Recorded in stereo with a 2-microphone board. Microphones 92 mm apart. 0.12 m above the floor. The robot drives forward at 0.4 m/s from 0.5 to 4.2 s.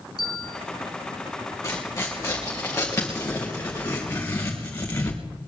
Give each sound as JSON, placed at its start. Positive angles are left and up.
{"t": 0.2, "sound": "a bell", "side_deg": 50, "distance_m": 2.0}
{"t": 1.6, "sound": "tearing paper", "side_deg": 30, "distance_m": 4.5}